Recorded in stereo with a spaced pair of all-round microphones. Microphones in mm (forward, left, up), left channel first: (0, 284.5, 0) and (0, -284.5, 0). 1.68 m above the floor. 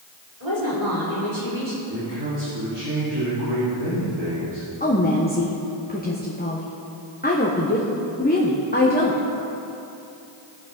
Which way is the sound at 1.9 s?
45° right (ahead or behind).